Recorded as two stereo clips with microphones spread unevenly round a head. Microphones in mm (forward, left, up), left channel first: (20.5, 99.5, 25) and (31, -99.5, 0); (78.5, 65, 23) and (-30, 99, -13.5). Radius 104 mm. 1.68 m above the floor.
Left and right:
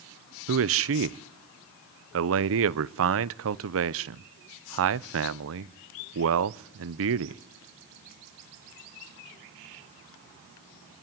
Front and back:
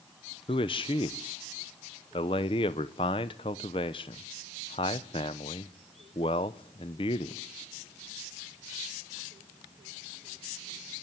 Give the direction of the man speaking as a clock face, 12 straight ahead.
2 o'clock.